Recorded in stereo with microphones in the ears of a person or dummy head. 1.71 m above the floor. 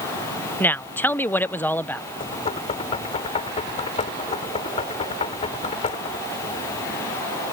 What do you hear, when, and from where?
0.6 s a woman speaking: 10° left (ahead or behind)
2.2 s knocking: 35° left (ahead or behind)